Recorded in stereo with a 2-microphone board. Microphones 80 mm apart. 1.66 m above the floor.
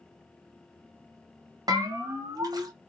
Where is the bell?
50° right (ahead or behind), 0.9 m.